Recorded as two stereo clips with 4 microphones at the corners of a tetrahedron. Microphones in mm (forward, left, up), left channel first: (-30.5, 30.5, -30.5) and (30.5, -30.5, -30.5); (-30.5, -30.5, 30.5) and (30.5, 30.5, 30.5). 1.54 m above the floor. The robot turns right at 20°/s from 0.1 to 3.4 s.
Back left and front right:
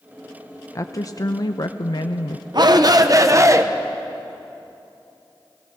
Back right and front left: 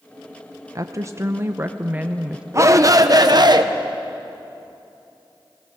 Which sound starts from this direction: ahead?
A shout, at 2.5 s.